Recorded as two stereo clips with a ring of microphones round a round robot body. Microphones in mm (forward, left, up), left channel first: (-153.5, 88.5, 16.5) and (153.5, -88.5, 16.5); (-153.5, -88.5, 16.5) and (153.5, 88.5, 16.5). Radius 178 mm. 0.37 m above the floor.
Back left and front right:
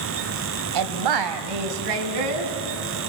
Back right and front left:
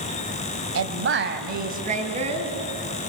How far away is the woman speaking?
About 2.0 m.